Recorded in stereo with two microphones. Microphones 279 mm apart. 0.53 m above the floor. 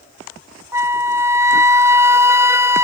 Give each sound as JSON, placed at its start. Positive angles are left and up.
{"t": 0.7, "sound": "a flute", "side_deg": -10}